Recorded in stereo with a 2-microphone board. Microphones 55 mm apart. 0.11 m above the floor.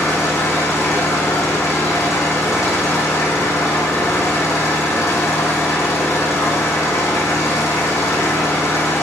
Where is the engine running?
70° left (ahead or behind), 4.5 m.